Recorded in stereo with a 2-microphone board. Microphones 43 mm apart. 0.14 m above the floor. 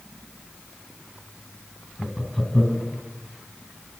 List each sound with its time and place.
2.0 s laughter: 5° left (ahead or behind), 1.8 m